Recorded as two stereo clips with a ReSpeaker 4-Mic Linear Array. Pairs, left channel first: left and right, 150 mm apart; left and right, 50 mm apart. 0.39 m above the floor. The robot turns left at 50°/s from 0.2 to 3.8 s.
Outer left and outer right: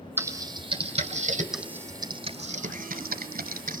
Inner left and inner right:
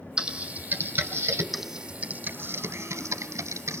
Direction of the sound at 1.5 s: 5° right (ahead or behind).